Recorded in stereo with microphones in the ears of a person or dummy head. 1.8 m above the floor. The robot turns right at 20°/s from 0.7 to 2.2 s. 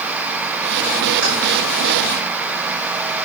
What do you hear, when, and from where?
1.2 s keys jangling: 65° right (ahead or behind), 5 m; by 1.3 s 70° right (ahead or behind), 5 m